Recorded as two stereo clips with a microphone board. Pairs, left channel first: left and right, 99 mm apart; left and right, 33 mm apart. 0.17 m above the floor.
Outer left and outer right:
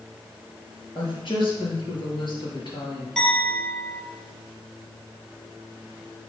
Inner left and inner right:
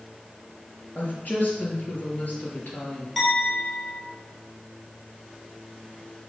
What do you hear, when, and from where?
0.9 s a woman speaking: 50° left (ahead or behind), 3.5 m
3.2 s a clink: 5° left (ahead or behind), 2.5 m